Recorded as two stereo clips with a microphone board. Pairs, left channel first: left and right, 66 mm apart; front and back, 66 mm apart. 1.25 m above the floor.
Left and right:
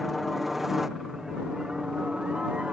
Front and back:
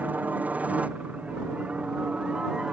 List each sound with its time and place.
0.0 s a helicopter: straight behind; by 2.7 s 135° right